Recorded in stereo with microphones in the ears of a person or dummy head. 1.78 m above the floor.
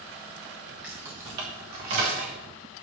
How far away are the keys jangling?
About 1.1 m.